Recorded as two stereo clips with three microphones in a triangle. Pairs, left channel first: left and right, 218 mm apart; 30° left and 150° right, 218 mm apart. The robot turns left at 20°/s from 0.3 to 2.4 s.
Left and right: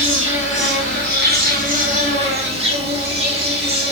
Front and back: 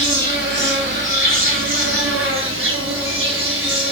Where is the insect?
110° right, 5.5 m; by 3.9 s 150° right, 5.5 m.